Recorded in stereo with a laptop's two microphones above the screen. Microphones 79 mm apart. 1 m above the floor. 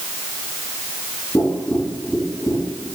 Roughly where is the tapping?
Left.